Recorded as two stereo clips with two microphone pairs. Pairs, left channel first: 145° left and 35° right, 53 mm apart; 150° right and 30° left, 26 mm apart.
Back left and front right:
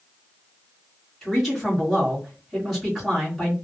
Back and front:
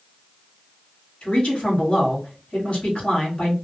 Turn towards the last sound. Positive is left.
turn(degrees=-120)